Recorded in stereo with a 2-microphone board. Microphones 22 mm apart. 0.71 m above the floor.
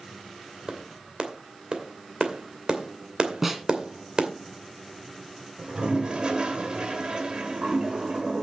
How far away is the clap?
About 2.5 m.